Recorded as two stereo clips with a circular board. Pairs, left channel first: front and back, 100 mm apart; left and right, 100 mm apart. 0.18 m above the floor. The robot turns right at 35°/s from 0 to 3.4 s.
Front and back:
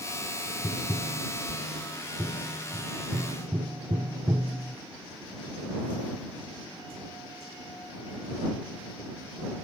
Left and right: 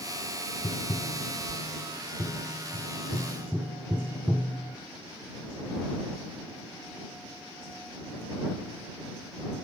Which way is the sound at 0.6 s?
75° left.